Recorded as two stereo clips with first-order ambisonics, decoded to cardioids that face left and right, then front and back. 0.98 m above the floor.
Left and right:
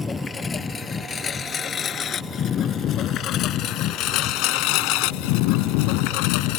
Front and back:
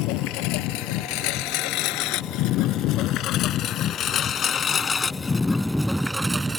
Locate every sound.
0.0 s a lawn mower: 15° left; by 6.6 s 105° left